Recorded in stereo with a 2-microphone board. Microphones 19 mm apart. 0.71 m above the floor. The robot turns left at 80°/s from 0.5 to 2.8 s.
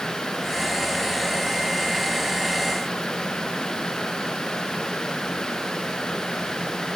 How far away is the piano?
I don't hear a piano.